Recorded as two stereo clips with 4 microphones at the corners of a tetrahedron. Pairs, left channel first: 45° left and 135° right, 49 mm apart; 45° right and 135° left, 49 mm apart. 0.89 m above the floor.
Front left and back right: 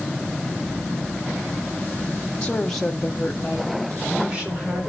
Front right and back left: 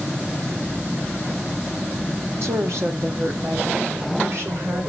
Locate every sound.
2.4 s a woman speaking: 110° left, 1.8 m; by 4.9 s 170° left, 4 m